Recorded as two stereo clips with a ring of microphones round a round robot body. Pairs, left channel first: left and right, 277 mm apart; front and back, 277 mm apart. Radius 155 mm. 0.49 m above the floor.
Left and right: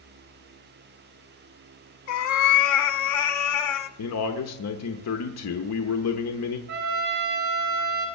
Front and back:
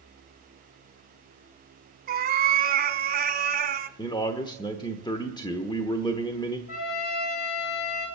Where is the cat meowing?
120° left, 1.1 m.